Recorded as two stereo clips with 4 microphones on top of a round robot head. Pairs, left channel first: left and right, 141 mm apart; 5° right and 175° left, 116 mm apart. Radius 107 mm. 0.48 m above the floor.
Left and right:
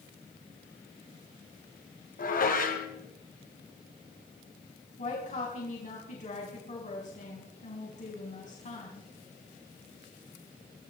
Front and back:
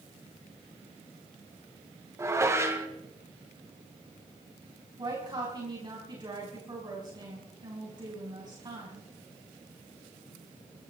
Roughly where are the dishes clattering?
Left.